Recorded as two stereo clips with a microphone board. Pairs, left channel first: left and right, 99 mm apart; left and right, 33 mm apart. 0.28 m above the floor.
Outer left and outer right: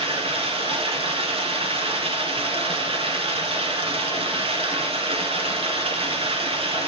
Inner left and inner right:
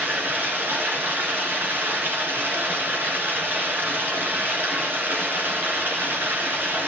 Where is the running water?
75° right (ahead or behind), 2.5 m.